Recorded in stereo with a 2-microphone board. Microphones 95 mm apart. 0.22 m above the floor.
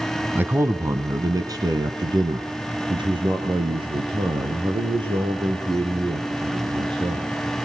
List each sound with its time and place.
0.3 s a man speaking: 20° right (ahead or behind), 1.3 m; by 7.3 s 70° right (ahead or behind), 6 m